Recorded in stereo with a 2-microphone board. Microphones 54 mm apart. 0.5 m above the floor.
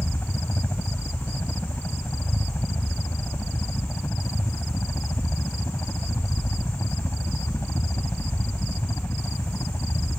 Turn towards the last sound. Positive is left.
turn(degrees=55)  # may be behind; listen again after turning